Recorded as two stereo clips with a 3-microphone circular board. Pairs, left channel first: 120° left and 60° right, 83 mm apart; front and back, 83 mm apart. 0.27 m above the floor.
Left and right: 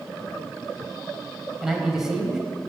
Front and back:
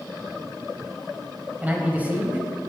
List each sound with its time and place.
1.6 s a man speaking: 140° right, 1.3 m